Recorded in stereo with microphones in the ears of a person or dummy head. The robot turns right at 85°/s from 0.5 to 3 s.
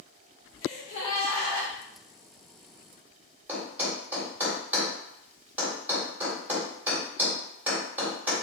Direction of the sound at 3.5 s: 10° right (ahead or behind).